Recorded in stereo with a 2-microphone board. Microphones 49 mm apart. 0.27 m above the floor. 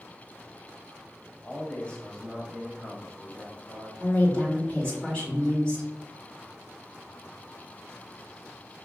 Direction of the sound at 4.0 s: 20° left (ahead or behind).